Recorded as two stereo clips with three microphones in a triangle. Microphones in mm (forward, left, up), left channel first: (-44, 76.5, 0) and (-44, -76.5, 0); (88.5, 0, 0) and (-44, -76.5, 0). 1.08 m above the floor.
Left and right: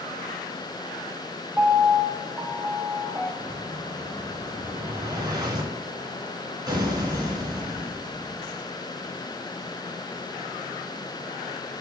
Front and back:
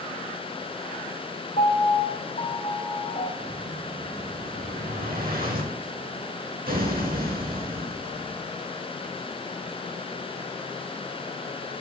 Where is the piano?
5° right, 1.2 m.